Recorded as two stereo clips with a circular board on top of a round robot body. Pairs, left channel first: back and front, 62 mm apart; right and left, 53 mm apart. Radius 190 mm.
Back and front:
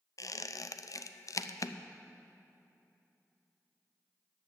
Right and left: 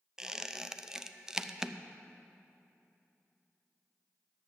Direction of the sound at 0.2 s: 170° left.